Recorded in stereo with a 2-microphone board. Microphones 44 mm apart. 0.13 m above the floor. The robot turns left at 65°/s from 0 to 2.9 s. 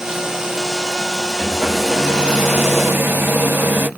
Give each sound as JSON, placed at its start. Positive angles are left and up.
{"t": 1.4, "sound": "a hair dryer", "azimuth_deg": 20, "distance_m": 1.5}